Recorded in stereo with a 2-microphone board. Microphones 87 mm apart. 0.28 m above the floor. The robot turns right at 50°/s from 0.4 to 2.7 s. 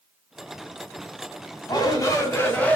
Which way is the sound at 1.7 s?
105° left.